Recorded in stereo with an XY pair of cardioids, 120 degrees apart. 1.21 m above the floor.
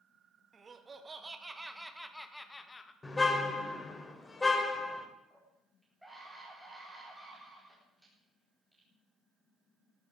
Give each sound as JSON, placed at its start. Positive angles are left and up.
{"t": 0.5, "sound": "laughter", "azimuth_deg": -35, "distance_m": 2.5}
{"t": 3.0, "sound": "a car horn", "azimuth_deg": 20, "distance_m": 2.5}
{"t": 5.3, "sound": "a scream", "azimuth_deg": -5, "distance_m": 4.5}